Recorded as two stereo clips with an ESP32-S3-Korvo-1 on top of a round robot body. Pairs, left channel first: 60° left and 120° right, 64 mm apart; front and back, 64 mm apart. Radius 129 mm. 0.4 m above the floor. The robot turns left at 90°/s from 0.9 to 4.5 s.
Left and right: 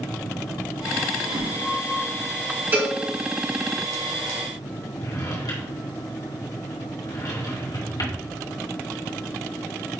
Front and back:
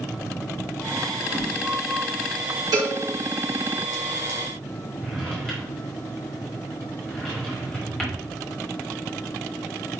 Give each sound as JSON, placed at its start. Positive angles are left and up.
{"t": 1.2, "sound": "a whoosh", "azimuth_deg": -105, "distance_m": 2.0}
{"t": 2.7, "sound": "a cowbell", "azimuth_deg": -175, "distance_m": 3.0}
{"t": 5.0, "sound": "a drawer", "azimuth_deg": 75, "distance_m": 3.0}